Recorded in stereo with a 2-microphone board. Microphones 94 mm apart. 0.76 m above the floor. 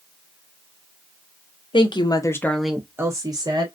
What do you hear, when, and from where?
1.7 s a woman speaking: 60° left (ahead or behind), 0.8 m; by 3.7 s 45° right (ahead or behind), 1.1 m